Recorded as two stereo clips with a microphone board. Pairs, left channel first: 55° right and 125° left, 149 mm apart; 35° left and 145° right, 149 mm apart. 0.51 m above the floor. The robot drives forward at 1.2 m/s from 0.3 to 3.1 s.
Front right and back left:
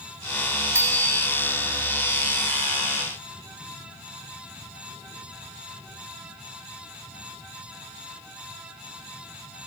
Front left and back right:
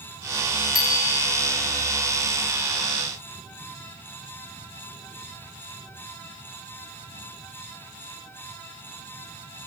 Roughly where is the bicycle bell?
Ahead left.